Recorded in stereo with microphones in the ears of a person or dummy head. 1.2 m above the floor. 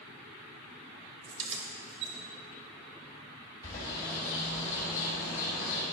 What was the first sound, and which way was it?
Keys jangling, 35° right (ahead or behind).